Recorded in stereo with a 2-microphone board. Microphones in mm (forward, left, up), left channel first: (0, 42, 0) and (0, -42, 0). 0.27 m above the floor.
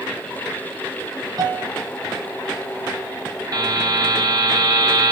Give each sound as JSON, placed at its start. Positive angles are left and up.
{"t": 1.4, "sound": "a piano", "side_deg": -50, "distance_m": 0.9}
{"t": 3.5, "sound": "a buzzer", "side_deg": -45, "distance_m": 1.3}